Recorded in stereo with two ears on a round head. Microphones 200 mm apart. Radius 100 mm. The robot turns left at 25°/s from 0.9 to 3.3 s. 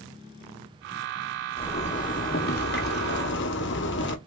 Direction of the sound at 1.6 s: 145° left.